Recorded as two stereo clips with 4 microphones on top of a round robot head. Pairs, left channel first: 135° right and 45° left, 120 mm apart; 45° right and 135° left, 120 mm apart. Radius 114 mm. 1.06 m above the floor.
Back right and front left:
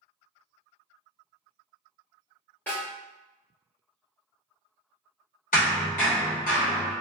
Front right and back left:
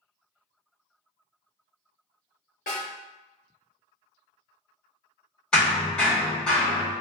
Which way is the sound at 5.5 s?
130° right.